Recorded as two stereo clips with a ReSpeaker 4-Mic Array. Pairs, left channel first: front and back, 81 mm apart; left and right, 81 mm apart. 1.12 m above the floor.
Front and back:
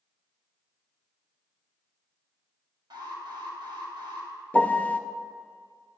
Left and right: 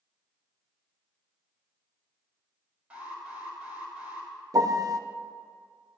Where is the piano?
65° right, 0.5 m.